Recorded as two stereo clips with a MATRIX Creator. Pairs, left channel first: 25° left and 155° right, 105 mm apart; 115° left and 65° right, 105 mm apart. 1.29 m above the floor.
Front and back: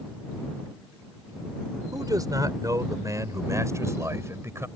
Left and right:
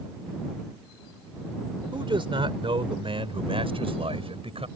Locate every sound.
1.9 s a man speaking: 105° right; by 4.7 s 95° right